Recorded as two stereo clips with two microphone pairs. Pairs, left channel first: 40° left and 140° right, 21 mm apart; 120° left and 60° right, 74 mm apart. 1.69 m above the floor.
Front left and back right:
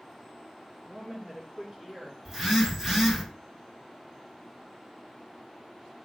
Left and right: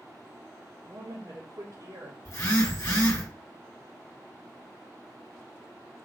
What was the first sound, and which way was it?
A woman speaking, 85° right.